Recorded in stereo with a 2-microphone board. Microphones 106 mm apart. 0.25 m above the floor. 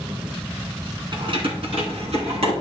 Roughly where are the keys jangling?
Right.